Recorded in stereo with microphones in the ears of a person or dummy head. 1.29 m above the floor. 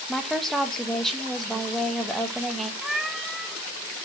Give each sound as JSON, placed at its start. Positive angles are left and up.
{"t": 0.1, "sound": "a woman speaking", "side_deg": -5, "distance_m": 1.1}
{"t": 2.8, "sound": "a cat meowing", "side_deg": 5, "distance_m": 0.6}